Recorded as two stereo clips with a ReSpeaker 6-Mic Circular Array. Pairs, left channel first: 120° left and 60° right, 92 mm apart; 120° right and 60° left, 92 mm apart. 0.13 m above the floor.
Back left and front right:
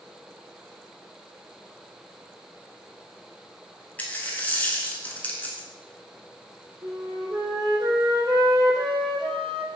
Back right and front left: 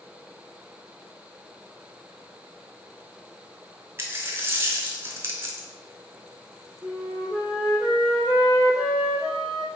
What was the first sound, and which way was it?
A dropped coin, 70° left.